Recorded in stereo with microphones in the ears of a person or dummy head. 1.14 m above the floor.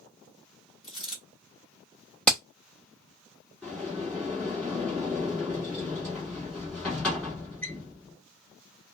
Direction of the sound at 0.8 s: 30° left (ahead or behind).